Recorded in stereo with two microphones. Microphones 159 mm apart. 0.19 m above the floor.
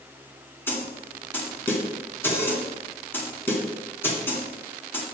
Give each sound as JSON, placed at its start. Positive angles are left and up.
{"t": 0.7, "sound": "a snare drum", "side_deg": 15, "distance_m": 2.0}